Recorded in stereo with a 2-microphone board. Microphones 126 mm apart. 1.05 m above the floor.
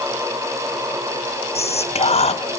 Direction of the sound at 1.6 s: 55° left (ahead or behind).